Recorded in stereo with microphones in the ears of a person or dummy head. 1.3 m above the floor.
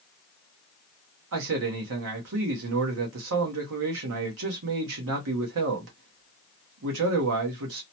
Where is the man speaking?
65° right (ahead or behind), 0.9 m.